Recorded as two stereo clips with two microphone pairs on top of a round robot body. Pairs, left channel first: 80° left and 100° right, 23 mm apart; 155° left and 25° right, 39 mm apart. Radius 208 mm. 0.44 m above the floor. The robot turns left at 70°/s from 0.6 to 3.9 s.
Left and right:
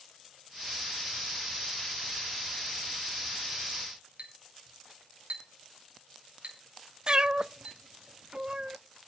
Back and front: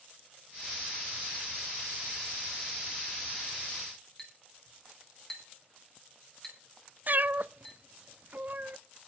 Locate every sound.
4.2 s a clink: 120° right, 4.5 m
7.1 s a cat meowing: 55° right, 0.6 m